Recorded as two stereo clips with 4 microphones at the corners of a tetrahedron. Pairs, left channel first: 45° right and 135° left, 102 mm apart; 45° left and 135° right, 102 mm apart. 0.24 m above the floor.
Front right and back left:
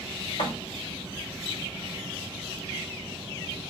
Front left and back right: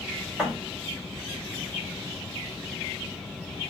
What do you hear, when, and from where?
0.4 s a thud: 45° right, 3 m